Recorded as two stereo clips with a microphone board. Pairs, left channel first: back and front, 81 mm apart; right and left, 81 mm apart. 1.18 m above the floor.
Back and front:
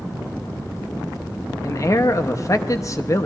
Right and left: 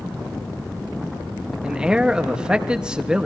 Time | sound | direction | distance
1.6 | a man speaking | 165° left | 0.8 m